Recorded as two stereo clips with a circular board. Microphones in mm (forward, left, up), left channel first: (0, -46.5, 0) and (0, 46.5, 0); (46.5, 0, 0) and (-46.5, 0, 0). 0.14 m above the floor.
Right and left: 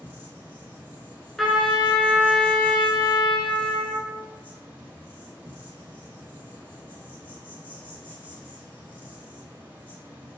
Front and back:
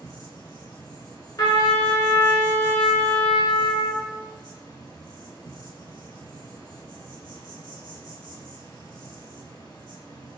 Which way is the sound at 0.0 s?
35° left.